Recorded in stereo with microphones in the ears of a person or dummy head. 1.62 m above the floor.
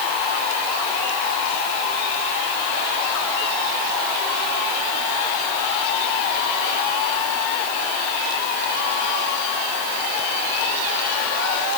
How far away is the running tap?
No running tap in this recording.